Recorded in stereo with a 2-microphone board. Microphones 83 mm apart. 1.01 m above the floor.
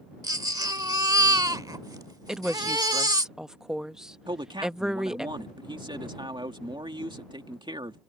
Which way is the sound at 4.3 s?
75° right (ahead or behind).